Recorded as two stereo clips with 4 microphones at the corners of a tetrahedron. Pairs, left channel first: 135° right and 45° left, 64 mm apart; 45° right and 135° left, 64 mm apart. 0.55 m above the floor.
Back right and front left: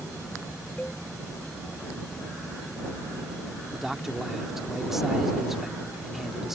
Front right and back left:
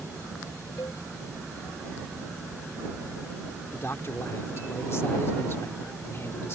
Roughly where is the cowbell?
Ahead right.